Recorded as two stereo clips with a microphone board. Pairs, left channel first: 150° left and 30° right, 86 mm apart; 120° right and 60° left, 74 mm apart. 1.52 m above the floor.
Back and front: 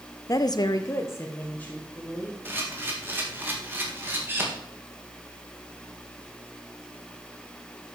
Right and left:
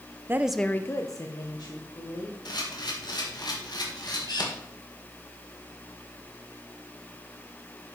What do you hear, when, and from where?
0.3 s a woman speaking: 110° left, 0.6 m; by 2.4 s 135° right, 2.5 m
2.5 s a camera shutter: 95° right, 1.9 m